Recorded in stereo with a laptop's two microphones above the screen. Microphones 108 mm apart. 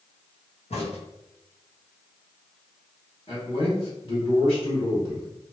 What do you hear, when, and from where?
0.7 s a crack: 70° left (ahead or behind), 1.1 m
3.3 s a man speaking: 55° left (ahead or behind), 1.9 m